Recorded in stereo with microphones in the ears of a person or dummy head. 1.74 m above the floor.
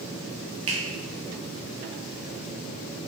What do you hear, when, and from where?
0.7 s a finger snap: 30° right (ahead or behind), 1.0 m